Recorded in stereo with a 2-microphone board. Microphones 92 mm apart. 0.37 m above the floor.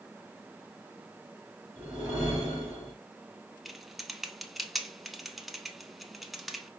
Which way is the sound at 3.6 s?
Centre (ahead or behind).